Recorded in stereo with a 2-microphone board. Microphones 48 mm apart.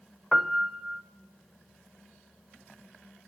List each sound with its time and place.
0.3 s a piano: centre (ahead or behind), 0.7 m